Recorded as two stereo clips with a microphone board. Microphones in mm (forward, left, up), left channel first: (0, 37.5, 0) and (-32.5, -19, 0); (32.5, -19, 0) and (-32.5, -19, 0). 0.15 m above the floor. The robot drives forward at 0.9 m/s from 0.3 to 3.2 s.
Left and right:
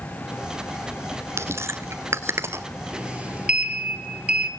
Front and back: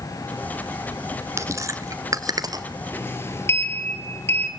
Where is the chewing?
150° right, 1.2 m; by 2.6 s 165° right, 2 m.